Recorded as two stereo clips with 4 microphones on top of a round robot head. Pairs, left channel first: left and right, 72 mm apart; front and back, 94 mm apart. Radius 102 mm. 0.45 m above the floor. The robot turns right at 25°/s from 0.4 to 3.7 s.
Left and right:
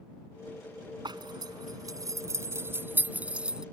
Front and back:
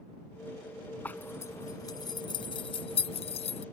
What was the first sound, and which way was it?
A zipper, 75° right.